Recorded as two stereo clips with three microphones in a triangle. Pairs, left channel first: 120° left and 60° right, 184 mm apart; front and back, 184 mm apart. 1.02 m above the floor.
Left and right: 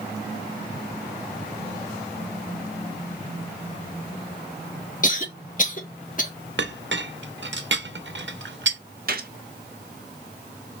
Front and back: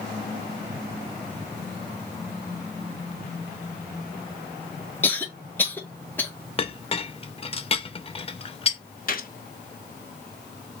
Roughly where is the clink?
Ahead right.